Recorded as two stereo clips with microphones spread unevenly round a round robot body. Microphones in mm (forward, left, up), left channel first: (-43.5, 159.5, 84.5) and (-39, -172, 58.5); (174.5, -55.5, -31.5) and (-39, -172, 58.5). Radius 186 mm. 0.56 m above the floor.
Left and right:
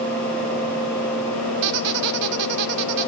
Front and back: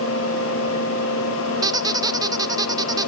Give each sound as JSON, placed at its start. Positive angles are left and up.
{"t": 1.6, "sound": "a squeak", "azimuth_deg": -85, "distance_m": 1.1}